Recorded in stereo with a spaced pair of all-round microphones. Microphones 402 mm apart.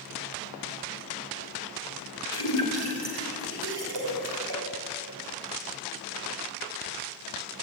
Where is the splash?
65° right (ahead or behind), 5.5 m.